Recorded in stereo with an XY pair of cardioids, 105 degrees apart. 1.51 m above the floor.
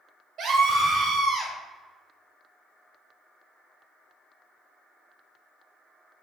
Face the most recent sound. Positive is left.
turn(degrees=-80)